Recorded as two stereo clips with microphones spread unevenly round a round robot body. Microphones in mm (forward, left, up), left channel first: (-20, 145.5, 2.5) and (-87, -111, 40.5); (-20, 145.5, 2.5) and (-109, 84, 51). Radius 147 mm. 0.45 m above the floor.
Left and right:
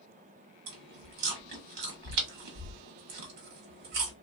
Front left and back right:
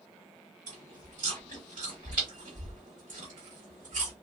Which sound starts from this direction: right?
Chewing, at 0.7 s.